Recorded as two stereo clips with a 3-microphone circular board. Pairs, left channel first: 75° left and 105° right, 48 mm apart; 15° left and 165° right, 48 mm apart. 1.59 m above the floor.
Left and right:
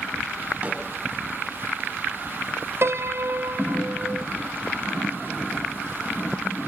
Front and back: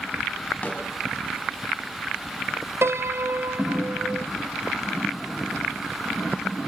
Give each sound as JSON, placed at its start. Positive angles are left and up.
{"t": 0.6, "sound": "a snare drum", "azimuth_deg": -50, "distance_m": 6.0}
{"t": 2.8, "sound": "a piano", "azimuth_deg": -135, "distance_m": 0.7}